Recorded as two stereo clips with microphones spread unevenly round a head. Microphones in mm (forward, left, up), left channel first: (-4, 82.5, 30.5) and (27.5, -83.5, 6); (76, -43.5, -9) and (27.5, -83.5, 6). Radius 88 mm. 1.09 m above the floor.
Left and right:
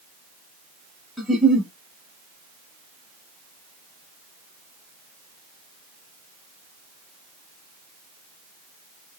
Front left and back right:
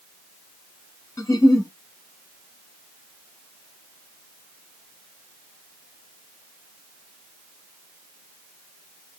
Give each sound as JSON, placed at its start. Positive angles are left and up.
{"t": 1.2, "sound": "a giggle", "azimuth_deg": 20, "distance_m": 1.2}